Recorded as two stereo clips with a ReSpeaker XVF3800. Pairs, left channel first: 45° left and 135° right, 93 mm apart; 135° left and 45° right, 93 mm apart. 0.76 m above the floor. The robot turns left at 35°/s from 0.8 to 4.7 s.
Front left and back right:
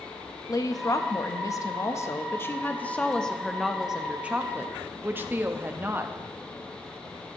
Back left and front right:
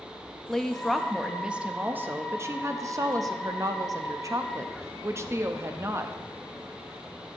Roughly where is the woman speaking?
Ahead left.